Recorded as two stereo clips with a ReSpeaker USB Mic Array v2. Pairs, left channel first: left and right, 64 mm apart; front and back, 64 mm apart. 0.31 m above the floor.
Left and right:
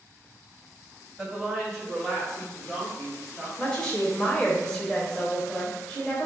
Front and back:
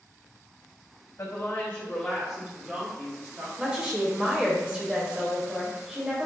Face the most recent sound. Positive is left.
turn(degrees=135)